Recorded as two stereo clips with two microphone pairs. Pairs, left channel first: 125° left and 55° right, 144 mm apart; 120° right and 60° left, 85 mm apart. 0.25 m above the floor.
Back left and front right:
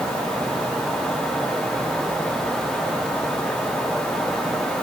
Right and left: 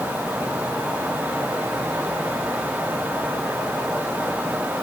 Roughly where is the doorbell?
No doorbell in this recording.